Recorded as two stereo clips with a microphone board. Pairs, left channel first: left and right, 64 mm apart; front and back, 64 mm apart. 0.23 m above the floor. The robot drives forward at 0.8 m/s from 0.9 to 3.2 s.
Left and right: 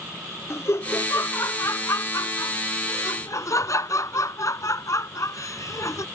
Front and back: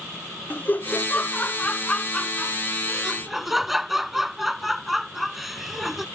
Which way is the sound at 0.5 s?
55° left.